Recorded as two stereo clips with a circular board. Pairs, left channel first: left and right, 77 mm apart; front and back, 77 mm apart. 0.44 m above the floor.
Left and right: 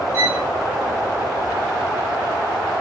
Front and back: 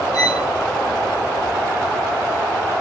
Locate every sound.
0.1 s a violin: 35° right, 5.5 m